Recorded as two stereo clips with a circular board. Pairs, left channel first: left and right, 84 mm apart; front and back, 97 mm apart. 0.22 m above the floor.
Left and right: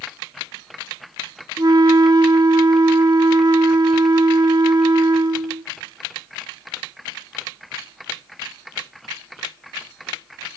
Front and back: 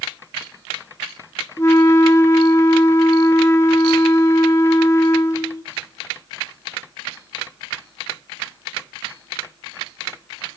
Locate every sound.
1.6 s a flute: 55° right, 0.5 m